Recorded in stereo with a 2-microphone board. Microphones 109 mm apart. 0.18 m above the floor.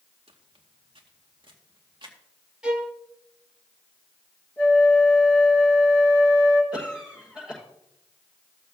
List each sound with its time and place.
0.3 s footsteps: 60° right (ahead or behind), 1.6 m; by 2.2 s 45° right (ahead or behind), 3 m
2.6 s a violin: 10° right (ahead or behind), 1.1 m
4.6 s a flute: 15° left (ahead or behind), 2.5 m
6.7 s a cough: 10° right (ahead or behind), 6 m